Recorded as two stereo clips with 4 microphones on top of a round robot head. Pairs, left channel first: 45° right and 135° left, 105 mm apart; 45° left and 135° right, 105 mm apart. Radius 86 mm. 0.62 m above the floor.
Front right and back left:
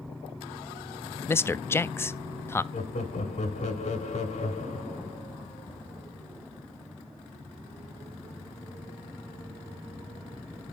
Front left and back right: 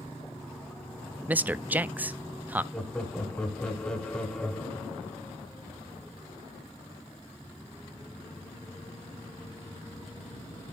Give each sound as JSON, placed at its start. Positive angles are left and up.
{"t": 1.3, "sound": "a man speaking", "azimuth_deg": -80, "distance_m": 0.5}
{"t": 2.7, "sound": "laughter", "azimuth_deg": -35, "distance_m": 3.0}